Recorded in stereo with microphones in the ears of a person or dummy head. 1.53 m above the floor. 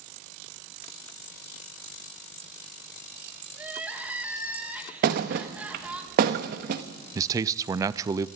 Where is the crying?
10° right (ahead or behind), 2.5 m.